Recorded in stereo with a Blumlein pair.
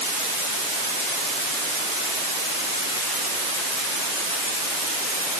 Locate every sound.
Only background noise.